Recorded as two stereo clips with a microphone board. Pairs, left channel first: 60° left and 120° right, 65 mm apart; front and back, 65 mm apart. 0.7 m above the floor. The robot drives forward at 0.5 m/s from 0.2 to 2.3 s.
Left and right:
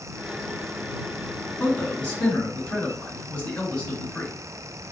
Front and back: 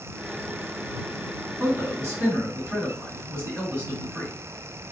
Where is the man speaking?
125° left, 1.8 m; by 4.3 s 135° left, 2 m.